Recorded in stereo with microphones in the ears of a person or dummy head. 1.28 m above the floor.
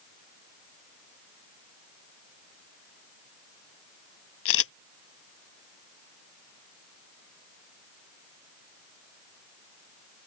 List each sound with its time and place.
4.5 s a camera shutter: 80° left